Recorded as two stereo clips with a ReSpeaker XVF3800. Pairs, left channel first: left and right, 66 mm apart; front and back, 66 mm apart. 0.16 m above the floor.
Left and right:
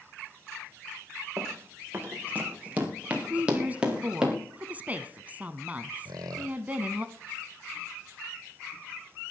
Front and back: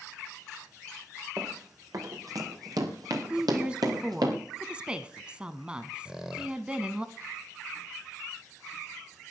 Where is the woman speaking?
120° right, 1.1 m.